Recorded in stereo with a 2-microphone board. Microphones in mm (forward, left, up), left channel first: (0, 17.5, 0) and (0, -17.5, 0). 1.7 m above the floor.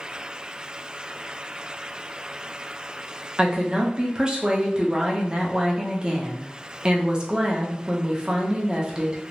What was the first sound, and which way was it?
A woman speaking, 25° right (ahead or behind).